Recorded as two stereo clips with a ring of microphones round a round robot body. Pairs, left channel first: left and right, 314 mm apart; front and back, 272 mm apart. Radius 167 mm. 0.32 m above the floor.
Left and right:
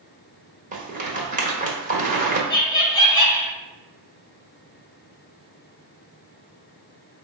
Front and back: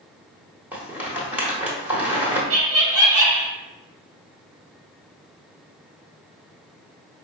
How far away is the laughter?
About 1.8 m.